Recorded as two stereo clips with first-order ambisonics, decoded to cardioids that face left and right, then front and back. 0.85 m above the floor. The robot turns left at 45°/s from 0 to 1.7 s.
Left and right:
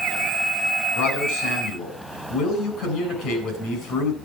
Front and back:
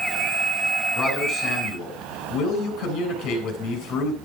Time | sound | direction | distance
0.9 | a man speaking | 75° left | 7 m